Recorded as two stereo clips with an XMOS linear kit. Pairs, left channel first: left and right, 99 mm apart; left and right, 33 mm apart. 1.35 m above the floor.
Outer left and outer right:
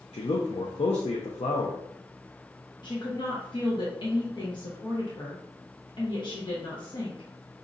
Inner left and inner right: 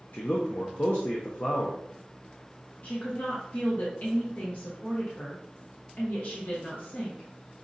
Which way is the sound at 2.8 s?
50° left (ahead or behind).